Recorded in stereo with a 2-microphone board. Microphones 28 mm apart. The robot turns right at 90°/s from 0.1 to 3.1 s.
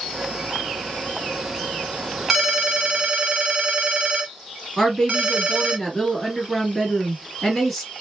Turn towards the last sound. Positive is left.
turn(degrees=5)  # may be behind; listen again after turning